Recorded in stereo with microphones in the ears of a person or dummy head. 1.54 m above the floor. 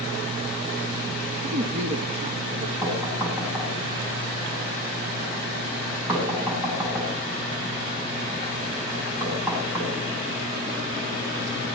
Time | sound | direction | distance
1.4 | a woman speaking | 40° right (ahead or behind) | 3 m
2.8 | knocking | 10° right (ahead or behind) | 9 m